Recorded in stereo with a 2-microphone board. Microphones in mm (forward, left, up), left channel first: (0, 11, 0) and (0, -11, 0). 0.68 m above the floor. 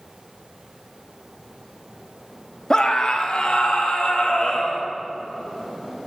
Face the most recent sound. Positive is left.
turn(degrees=70)  # may be behind; listen again after turning